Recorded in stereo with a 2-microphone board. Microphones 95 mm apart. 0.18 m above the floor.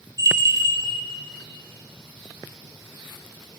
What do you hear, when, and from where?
0.2 s a bell: 35° right (ahead or behind), 1.6 m